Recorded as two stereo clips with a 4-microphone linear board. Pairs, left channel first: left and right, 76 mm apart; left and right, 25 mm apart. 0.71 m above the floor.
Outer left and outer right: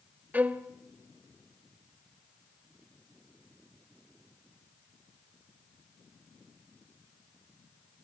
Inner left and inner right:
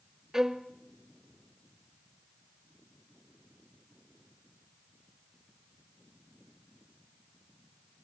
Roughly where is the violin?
Centre.